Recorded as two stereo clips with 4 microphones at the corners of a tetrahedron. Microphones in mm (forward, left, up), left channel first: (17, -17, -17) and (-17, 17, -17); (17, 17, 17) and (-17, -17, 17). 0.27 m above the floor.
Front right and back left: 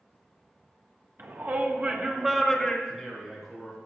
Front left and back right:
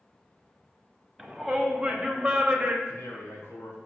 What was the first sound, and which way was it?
A shout, 140° left.